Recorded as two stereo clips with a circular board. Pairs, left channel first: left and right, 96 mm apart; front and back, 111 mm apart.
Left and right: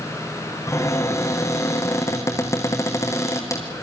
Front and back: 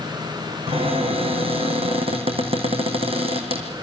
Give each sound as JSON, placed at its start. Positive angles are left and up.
{"t": 0.7, "sound": "a cupboard door", "azimuth_deg": 150, "distance_m": 3.5}